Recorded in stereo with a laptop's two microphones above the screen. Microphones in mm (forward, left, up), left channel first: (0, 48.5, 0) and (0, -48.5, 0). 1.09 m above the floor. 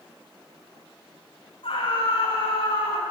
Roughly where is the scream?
Left.